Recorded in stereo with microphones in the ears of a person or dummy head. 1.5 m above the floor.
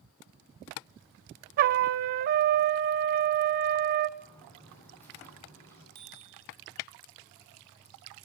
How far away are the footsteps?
About 9 m.